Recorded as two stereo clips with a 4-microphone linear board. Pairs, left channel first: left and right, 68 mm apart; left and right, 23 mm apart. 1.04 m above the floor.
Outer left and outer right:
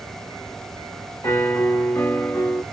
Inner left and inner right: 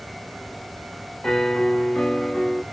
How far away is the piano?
About 0.7 m.